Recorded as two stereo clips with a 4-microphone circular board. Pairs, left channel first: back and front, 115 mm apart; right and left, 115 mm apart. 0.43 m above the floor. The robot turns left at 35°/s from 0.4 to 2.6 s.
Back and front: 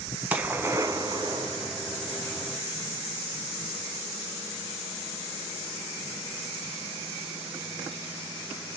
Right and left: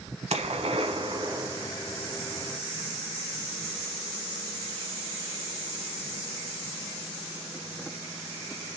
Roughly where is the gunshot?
Left.